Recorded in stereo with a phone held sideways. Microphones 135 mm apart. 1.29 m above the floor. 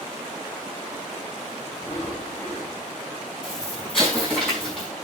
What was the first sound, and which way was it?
Breathing, 15° left (ahead or behind).